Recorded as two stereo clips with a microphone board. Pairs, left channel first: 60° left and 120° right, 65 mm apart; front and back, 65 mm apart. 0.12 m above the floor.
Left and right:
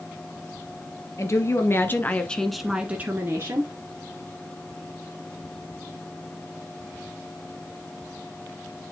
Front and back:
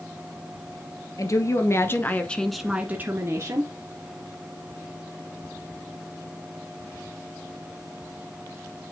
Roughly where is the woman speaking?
Ahead left.